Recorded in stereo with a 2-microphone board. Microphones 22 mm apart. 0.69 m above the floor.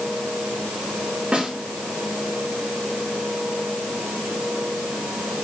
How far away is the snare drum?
About 2.5 m.